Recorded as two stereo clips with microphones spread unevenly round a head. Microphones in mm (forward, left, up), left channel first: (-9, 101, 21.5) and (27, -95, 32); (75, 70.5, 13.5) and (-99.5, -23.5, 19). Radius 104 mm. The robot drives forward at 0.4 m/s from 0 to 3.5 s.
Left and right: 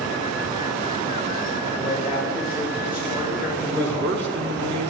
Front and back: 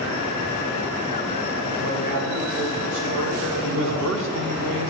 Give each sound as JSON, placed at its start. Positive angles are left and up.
{"t": 1.8, "sound": "a man speaking", "azimuth_deg": -160, "distance_m": 7.5}
{"t": 3.6, "sound": "a man speaking", "azimuth_deg": -120, "distance_m": 2.0}